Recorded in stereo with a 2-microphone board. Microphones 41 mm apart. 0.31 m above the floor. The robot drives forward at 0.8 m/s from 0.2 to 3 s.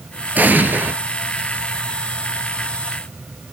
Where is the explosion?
45° right (ahead or behind), 2.0 m; by 0.9 s 55° right (ahead or behind), 1.7 m.